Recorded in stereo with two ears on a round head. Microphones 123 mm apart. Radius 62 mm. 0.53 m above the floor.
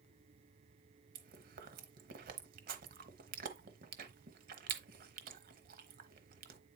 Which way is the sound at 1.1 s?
70° right (ahead or behind).